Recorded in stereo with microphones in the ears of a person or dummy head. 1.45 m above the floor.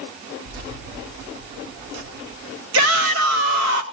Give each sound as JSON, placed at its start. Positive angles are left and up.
{"t": 0.5, "sound": "keys jangling", "side_deg": -70, "distance_m": 3.0}
{"t": 2.7, "sound": "a shout", "side_deg": -75, "distance_m": 2.5}